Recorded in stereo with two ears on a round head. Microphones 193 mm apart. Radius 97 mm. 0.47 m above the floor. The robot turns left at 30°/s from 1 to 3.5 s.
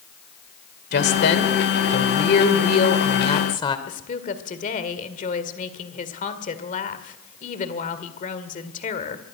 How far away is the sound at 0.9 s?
About 2 m.